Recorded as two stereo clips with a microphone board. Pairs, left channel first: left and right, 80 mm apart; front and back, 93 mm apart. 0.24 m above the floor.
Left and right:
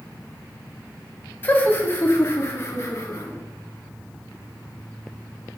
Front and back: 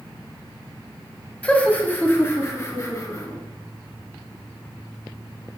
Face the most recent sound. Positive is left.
turn(degrees=45)